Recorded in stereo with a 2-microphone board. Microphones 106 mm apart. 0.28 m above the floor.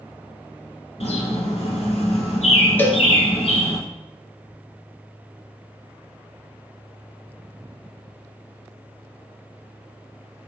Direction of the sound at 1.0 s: 75° left (ahead or behind).